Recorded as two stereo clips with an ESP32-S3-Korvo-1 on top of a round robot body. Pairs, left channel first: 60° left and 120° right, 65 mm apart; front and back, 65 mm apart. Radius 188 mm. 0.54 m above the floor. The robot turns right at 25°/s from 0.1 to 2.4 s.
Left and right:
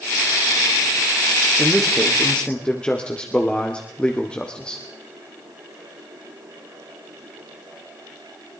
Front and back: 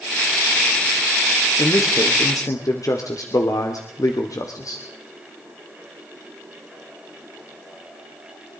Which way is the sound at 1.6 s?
35° right.